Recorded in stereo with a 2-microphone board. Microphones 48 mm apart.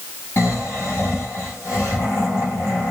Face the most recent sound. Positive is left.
turn(degrees=70)  # may be behind; listen again after turning